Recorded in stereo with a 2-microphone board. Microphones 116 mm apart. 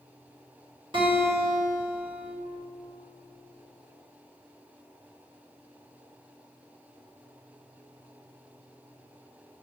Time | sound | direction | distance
0.9 | a guitar | 45° right (ahead or behind) | 1.8 m